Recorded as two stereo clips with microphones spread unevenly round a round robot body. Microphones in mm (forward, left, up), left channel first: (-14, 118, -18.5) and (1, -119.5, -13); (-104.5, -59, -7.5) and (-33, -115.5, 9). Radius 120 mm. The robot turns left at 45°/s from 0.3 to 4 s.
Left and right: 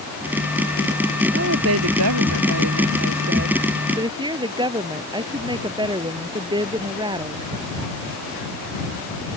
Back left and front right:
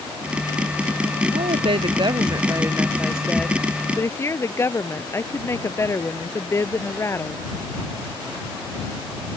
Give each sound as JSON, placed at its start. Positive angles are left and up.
{"t": 1.3, "sound": "a woman speaking", "azimuth_deg": -40}